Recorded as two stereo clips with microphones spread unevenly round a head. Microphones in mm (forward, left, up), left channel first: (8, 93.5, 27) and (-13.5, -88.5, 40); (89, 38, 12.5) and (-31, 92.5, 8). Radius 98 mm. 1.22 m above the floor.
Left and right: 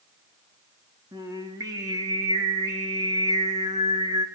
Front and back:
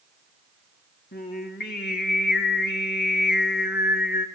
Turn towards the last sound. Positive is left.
turn(degrees=-25)